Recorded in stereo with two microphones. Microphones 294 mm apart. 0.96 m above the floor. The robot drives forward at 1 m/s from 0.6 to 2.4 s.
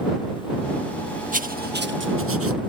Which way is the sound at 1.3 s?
25° right (ahead or behind).